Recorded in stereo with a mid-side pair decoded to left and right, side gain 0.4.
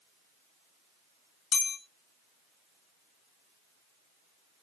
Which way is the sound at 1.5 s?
65° left.